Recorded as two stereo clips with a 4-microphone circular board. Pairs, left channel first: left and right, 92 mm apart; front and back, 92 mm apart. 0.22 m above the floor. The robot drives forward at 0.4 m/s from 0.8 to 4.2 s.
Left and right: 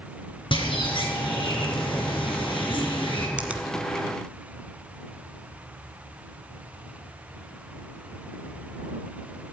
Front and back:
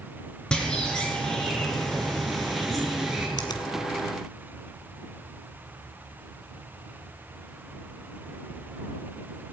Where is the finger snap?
20° right, 1.5 m.